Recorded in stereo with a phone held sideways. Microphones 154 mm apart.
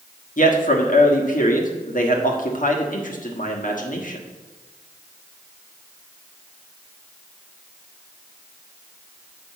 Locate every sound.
0.4 s a man speaking: 60° left (ahead or behind), 1.3 m